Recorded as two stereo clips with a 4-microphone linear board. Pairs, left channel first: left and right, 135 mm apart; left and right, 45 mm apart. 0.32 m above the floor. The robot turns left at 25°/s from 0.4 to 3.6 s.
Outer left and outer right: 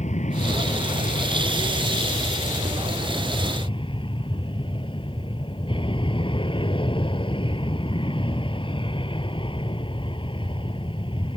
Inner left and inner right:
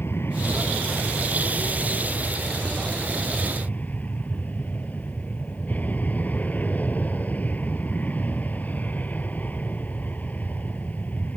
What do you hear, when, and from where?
0.0 s an aircraft: 120° left; by 11.4 s 40° left